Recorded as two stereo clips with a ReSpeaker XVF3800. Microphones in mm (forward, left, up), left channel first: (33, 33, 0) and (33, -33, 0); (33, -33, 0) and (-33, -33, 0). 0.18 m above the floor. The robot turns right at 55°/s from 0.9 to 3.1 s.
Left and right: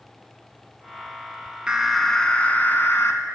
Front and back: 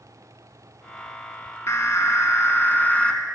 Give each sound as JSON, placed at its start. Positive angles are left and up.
{"t": 1.7, "sound": "an alarm", "azimuth_deg": -15, "distance_m": 0.9}